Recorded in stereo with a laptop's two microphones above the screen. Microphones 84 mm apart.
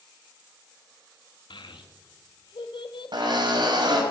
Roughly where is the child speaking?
Left.